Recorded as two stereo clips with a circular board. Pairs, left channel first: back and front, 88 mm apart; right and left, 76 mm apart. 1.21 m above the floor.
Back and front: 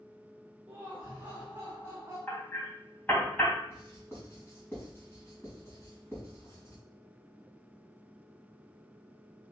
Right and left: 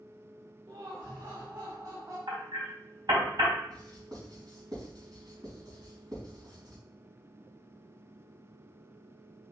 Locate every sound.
0.7 s laughter: 75° left, 2.5 m; by 2.2 s 60° left, 3.5 m
2.3 s hammering: 110° left, 3 m
3.7 s writing: 120° left, 4.5 m